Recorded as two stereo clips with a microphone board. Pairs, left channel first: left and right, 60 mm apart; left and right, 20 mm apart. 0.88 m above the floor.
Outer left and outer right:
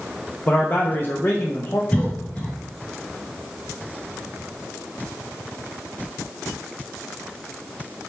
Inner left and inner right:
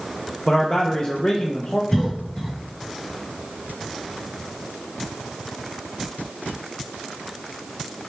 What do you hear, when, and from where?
0.5 s a man speaking: 35° left (ahead or behind), 0.8 m
1.9 s a cough: 25° left (ahead or behind), 1.0 m